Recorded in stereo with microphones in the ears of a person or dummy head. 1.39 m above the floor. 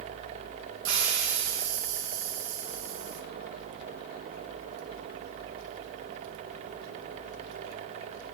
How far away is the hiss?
About 0.9 m.